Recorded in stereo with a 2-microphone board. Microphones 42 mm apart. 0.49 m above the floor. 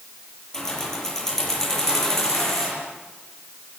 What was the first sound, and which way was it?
Keys jangling, 10° left (ahead or behind).